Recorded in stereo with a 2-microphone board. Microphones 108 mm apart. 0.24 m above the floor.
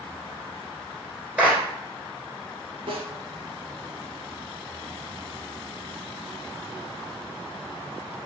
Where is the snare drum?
65° right (ahead or behind), 1.3 m.